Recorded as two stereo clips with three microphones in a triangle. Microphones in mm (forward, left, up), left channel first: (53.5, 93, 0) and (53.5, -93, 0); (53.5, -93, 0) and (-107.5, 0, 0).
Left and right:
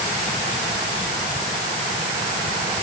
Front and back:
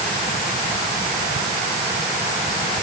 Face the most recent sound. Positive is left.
No sound to turn to.